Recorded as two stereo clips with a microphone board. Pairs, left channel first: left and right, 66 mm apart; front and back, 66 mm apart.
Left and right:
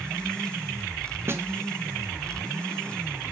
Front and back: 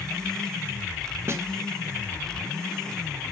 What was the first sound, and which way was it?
A snare drum, 135° right.